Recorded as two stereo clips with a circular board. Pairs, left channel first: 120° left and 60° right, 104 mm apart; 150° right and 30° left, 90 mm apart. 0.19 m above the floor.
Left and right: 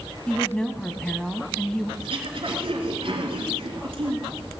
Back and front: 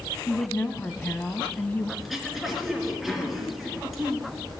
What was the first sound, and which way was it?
A woman speaking, 170° right.